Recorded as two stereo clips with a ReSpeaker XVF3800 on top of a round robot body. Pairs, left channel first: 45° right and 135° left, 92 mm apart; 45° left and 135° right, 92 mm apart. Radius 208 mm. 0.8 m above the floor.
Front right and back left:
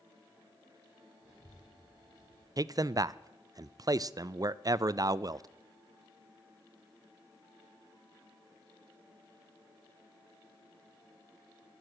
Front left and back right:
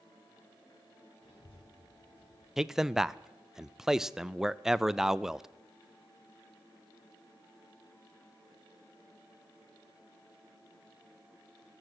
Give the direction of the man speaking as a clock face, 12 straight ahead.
7 o'clock.